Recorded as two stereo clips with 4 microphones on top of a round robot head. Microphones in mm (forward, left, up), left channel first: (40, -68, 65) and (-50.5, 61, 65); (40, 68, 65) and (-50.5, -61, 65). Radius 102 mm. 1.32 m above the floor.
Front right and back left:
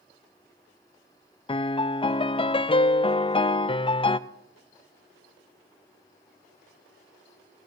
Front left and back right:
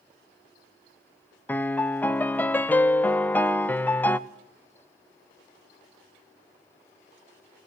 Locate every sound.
1.5 s a piano: 20° right, 0.5 m